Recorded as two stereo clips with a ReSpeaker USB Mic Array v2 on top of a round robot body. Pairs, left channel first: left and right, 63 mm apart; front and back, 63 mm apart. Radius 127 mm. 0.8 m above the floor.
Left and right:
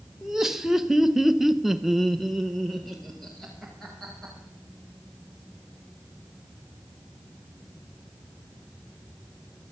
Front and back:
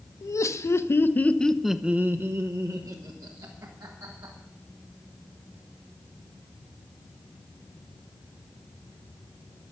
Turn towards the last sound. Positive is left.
turn(degrees=180)